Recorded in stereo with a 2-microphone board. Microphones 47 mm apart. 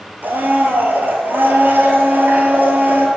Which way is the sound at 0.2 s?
45° right (ahead or behind).